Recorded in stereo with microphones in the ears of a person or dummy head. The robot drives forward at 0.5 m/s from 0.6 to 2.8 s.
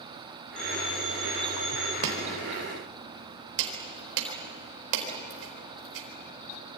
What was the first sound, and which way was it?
A phone ringing, 30° left (ahead or behind).